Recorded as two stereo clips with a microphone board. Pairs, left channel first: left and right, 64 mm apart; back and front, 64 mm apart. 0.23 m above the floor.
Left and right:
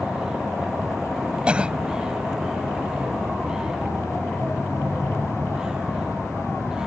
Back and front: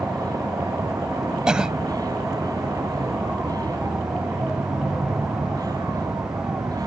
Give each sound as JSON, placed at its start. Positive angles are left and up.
{"t": 0.0, "sound": "a vehicle", "azimuth_deg": -10}
{"t": 1.5, "sound": "a cough", "azimuth_deg": -55}